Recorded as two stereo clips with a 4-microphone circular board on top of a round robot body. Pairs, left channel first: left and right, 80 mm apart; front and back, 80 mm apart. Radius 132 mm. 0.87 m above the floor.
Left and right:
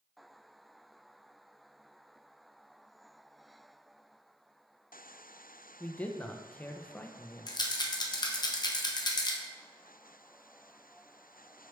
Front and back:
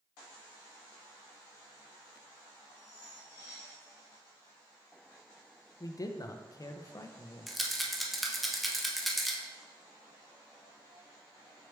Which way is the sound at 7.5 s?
90° left.